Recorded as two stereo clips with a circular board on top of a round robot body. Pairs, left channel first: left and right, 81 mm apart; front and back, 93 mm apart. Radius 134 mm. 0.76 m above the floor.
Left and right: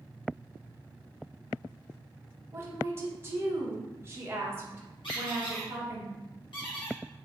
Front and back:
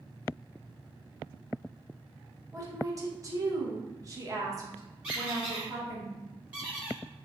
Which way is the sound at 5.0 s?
105° left.